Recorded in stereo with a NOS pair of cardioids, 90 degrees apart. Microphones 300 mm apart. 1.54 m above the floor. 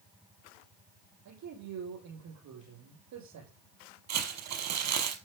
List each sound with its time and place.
1.2 s a man speaking: 70° right, 8.5 m
4.1 s crumpling: 65° right, 5 m